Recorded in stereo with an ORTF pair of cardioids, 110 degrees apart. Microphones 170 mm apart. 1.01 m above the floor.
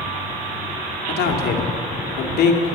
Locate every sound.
1.1 s a man speaking: 70° left, 2.0 m